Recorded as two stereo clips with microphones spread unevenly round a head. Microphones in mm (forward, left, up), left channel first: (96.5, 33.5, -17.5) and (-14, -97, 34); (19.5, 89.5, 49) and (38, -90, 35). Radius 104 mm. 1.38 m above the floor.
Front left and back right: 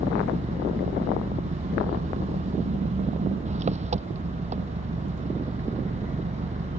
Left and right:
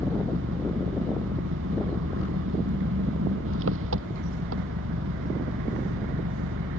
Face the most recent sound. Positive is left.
turn(degrees=-80)